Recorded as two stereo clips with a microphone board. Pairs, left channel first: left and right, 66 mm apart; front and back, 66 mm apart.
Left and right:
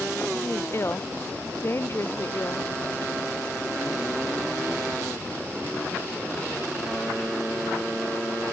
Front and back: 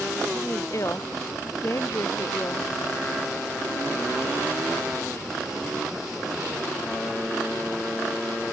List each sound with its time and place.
0.3 s a woman speaking: 40° left